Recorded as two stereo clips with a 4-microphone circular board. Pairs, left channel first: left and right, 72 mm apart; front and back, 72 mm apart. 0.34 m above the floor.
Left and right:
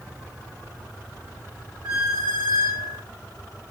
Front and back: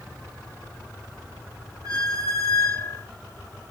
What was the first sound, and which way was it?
A squeak, 145° right.